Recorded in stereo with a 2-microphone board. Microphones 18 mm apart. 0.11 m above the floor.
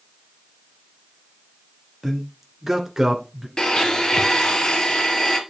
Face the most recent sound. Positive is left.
turn(degrees=40)  # may be behind; listen again after turning